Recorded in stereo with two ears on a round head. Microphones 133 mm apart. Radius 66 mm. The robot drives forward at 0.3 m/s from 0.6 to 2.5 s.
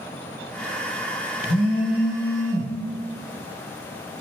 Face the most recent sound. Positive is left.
turn(degrees=85)